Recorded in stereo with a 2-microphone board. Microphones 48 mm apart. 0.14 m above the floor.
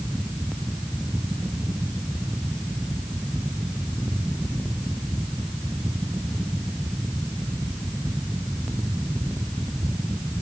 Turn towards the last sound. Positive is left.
No sound to turn to.